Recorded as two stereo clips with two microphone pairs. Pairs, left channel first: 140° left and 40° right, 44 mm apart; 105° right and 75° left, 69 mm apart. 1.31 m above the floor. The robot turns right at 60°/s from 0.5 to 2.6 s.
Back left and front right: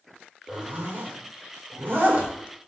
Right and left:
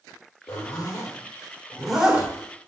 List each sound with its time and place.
0.5 s a zipper: 95° right, 3 m; by 2.3 s 15° left, 3 m